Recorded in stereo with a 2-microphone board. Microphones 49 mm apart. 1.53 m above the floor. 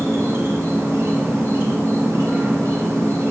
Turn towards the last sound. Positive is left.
turn(degrees=-65)  # may be behind; listen again after turning